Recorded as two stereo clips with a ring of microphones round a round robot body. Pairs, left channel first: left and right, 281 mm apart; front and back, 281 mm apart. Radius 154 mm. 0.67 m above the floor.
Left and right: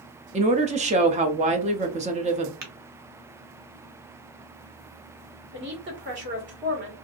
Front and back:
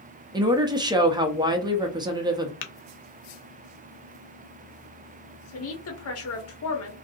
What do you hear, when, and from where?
0.3 s a woman speaking: 120° right, 0.6 m
2.6 s tapping: 35° right, 0.5 m
5.5 s a woman speaking: 35° right, 1.3 m